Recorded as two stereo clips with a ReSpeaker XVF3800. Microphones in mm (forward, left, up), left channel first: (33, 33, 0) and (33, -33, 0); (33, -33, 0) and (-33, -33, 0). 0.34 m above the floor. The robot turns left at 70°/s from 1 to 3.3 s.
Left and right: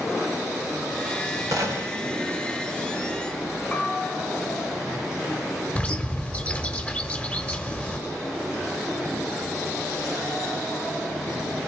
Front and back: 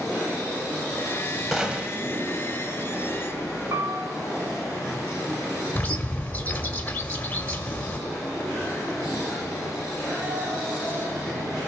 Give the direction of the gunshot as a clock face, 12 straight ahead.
3 o'clock.